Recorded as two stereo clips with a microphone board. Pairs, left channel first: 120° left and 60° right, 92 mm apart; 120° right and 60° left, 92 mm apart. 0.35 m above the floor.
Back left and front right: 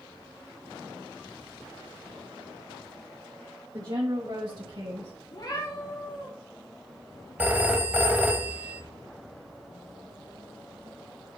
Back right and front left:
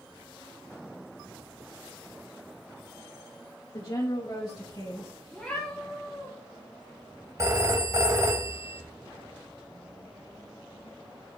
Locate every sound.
3.7 s a woman speaking: 95° right, 1.5 m; by 5.1 s 80° right, 2 m
5.3 s a cat meowing: 155° left, 3.5 m
7.4 s a phone ringing: 10° left, 0.8 m